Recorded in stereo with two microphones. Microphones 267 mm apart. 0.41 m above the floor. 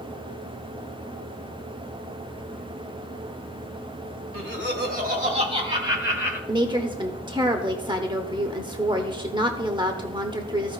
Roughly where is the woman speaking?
Centre.